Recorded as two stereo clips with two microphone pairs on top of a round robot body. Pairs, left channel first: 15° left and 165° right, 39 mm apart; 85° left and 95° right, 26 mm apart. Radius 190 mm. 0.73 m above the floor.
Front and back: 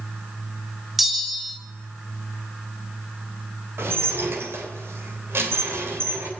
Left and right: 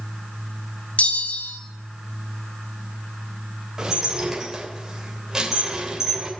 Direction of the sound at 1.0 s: 105° left.